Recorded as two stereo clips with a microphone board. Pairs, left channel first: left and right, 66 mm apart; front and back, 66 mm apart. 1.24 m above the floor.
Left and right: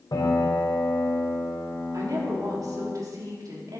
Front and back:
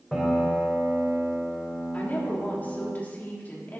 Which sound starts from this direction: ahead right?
A woman speaking, at 1.9 s.